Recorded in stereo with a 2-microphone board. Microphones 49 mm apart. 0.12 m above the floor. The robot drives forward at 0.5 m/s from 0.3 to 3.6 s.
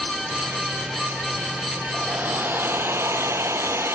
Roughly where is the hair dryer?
Right.